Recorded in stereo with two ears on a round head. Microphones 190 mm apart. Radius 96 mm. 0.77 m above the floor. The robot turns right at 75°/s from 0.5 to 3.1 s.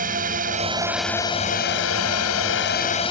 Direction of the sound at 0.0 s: 40° right.